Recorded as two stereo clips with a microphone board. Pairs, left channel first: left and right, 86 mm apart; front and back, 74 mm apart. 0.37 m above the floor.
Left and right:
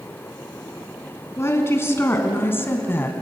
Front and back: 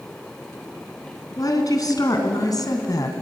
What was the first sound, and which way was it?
A woman speaking, 30° left.